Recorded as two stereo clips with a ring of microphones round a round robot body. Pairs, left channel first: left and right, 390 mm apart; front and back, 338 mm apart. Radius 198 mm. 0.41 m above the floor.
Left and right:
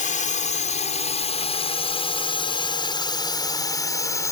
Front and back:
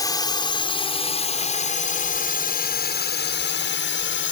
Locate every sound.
0.0 s a drone: 60° left; by 4.3 s 15° left